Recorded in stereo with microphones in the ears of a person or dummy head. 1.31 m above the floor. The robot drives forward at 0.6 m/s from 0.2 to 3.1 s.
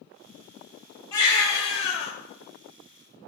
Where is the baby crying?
20° left (ahead or behind), 1.2 m; by 2.1 s 40° left (ahead or behind), 0.7 m.